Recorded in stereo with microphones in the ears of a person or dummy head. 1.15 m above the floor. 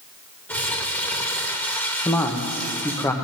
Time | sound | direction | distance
0.5 | crumpling | 10° left (ahead or behind) | 1.2 m
2.0 | a man speaking | 10° left (ahead or behind) | 0.7 m